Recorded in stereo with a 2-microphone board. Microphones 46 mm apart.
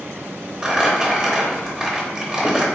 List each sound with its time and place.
0.6 s crumpling: 15° right (ahead or behind), 0.7 m